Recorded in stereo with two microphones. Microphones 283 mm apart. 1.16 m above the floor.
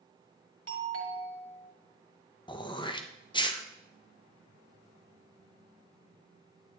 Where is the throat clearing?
15° left (ahead or behind), 0.8 m.